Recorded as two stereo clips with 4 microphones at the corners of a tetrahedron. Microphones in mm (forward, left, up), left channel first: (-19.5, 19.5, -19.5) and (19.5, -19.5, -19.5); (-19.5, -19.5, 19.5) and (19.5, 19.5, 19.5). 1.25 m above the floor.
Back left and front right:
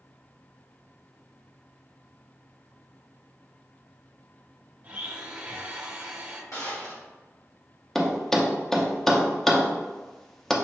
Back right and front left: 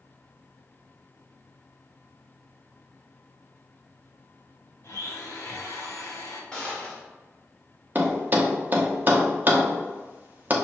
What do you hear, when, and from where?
4.8 s a blender: 105° right, 0.8 m
6.5 s a gunshot: 150° left, 1.6 m
8.0 s a thud: 55° left, 0.6 m